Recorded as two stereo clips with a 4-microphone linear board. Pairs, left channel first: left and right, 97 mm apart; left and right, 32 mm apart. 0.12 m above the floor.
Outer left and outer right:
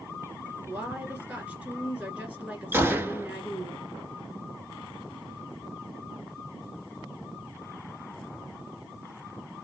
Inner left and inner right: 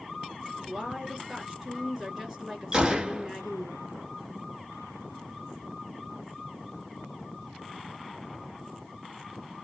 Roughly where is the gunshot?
Right.